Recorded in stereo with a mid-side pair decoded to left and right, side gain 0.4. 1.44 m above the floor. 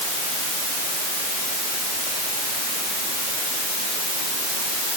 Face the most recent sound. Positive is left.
No sound to turn to.